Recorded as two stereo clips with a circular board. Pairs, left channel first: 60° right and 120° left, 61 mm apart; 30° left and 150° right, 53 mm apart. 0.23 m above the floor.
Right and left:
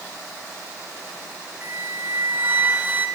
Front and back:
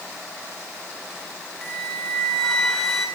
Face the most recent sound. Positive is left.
turn(degrees=105)